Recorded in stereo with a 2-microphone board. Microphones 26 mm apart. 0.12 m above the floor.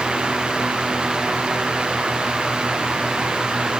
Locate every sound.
Only background noise.